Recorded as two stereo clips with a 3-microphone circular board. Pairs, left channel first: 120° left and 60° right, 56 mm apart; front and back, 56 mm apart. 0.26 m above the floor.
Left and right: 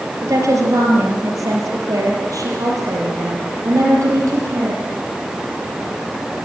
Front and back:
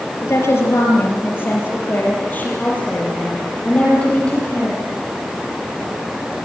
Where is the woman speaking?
40° right, 6 m; by 4.8 s 75° right, 9.5 m.